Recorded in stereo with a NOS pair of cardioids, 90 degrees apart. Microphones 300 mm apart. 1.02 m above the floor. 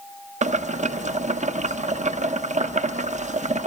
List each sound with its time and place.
0.4 s boiling: 25° right, 0.9 m